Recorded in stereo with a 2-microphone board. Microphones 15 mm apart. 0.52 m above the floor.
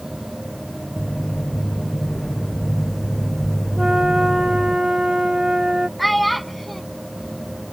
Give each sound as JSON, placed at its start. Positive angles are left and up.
{"t": 1.0, "sound": "footsteps", "side_deg": 70}
{"t": 3.8, "sound": "a flute", "side_deg": -55}
{"t": 6.0, "sound": "a child speaking", "side_deg": 0}